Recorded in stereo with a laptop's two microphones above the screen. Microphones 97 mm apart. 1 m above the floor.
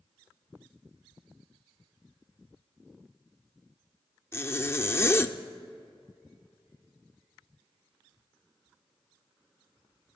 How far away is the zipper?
About 0.6 m.